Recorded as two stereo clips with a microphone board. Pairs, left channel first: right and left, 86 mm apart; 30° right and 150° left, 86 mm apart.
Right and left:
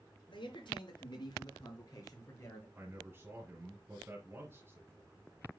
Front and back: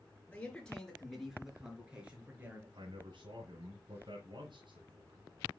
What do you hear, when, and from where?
0.3 s a man speaking: 105° right, 4.5 m; by 2.6 s 145° right, 4.5 m
2.8 s a man speaking: 150° left, 2.5 m